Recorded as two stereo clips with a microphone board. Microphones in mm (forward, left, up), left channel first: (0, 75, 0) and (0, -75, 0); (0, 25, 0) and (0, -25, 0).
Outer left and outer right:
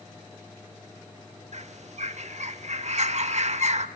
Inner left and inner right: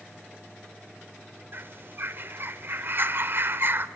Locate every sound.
1.5 s a bird: 50° right (ahead or behind), 1.0 m